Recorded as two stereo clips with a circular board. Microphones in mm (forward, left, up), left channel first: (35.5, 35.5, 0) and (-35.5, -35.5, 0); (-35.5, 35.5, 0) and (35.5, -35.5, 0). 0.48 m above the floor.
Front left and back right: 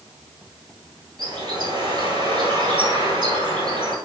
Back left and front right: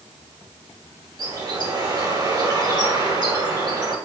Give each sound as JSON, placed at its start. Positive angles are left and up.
{"t": 1.2, "sound": "a bird", "azimuth_deg": -90, "distance_m": 1.7}